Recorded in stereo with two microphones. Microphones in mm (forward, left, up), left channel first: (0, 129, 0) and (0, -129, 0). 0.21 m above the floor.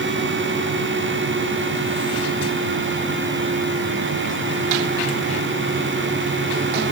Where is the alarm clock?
No alarm clock in this recording.